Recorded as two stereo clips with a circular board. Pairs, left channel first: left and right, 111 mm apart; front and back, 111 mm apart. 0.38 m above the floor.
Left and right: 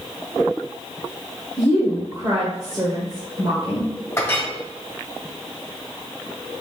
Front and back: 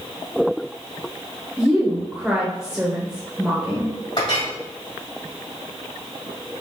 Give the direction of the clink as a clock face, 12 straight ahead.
11 o'clock.